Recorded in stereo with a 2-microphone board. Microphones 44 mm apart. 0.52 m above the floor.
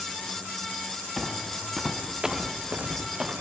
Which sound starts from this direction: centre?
Footsteps, at 1.2 s.